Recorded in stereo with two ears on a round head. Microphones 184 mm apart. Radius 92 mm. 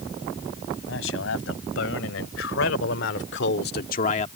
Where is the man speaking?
65° left (ahead or behind); by 4.3 s 30° left (ahead or behind).